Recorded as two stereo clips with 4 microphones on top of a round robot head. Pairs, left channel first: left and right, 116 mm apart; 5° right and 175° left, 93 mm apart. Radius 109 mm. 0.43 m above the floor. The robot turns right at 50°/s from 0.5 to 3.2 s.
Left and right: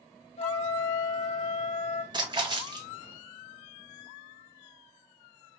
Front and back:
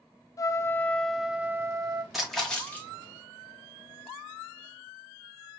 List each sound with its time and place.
0.4 s a trumpet: 50° left, 0.6 m; by 2.0 s 125° left, 0.6 m
2.1 s a splash: 100° right, 1.4 m; by 2.9 s 65° right, 1.4 m